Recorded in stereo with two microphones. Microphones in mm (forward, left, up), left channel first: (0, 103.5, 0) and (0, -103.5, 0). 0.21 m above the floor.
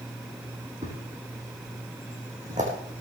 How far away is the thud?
About 4 m.